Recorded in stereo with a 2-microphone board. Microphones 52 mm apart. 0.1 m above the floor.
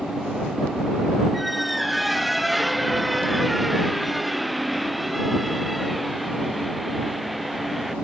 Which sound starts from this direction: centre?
A squeak, at 1.3 s.